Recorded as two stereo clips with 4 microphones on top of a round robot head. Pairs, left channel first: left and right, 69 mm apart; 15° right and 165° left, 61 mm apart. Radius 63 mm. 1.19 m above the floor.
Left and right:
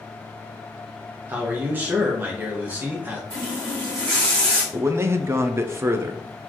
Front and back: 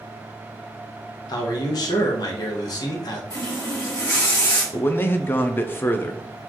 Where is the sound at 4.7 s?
55° right, 0.6 m.